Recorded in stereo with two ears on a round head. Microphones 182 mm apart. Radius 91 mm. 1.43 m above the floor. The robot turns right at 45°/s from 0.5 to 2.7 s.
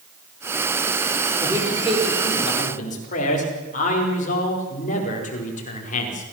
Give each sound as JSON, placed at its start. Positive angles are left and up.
{"t": 1.4, "sound": "a man speaking", "azimuth_deg": -20, "distance_m": 4.5}